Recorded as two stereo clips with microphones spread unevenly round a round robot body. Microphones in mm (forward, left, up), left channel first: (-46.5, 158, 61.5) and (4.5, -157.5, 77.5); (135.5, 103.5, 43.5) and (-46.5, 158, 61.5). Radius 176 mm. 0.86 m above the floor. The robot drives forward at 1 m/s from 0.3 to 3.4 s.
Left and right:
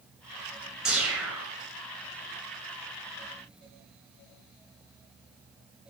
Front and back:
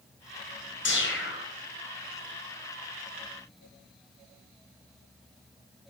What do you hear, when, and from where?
0.8 s a whoosh: 5° left, 7.5 m; by 1.5 s 10° left, 7 m